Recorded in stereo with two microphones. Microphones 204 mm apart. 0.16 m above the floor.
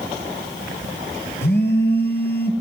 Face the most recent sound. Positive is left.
turn(degrees=55)  # may be behind; listen again after turning